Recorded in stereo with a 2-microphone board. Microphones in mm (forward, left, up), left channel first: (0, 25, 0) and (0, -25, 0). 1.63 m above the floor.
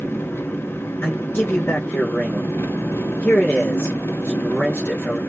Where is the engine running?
50° left (ahead or behind), 1.0 m.